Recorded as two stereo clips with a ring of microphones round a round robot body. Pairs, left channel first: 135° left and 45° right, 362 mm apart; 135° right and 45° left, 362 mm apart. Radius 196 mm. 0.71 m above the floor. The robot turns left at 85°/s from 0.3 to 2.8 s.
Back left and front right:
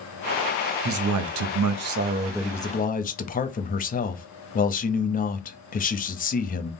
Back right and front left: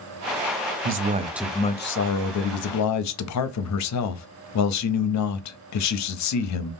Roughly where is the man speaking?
Ahead.